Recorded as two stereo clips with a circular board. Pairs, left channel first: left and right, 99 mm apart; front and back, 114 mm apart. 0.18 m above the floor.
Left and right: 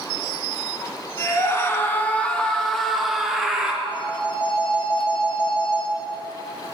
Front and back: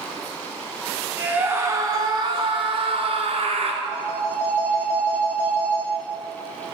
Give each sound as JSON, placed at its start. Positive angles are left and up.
{"t": 1.2, "sound": "a scream", "azimuth_deg": 110, "distance_m": 1.3}
{"t": 3.8, "sound": "a phone ringing", "azimuth_deg": 100, "distance_m": 3.0}